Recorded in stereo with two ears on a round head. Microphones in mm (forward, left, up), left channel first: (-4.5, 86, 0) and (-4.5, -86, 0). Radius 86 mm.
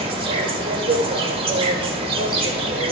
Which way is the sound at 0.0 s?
30° right (ahead or behind).